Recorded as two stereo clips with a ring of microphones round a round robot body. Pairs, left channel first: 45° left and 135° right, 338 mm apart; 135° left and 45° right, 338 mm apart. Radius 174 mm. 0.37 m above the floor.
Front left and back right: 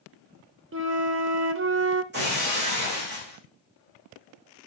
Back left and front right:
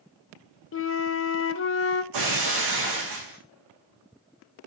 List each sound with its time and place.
0.7 s a flute: straight behind, 0.7 m
2.1 s breaking glass: 75° right, 5 m